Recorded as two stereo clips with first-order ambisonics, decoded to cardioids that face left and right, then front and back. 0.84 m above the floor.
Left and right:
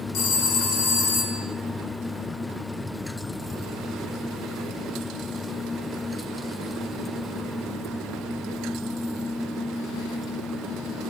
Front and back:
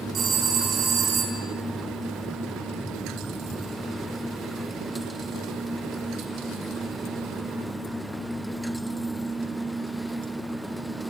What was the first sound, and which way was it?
A phone ringing, 120° left.